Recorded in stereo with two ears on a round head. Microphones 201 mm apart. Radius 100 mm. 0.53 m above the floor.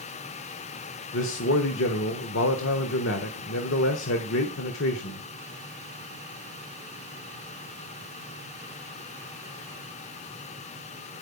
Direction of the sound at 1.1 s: 60° left (ahead or behind).